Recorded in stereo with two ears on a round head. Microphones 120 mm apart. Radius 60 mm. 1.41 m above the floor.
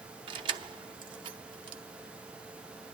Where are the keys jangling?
35° right (ahead or behind), 0.7 m.